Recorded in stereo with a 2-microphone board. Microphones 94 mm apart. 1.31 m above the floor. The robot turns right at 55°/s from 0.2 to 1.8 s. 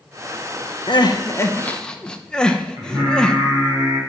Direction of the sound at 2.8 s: 35° right (ahead or behind).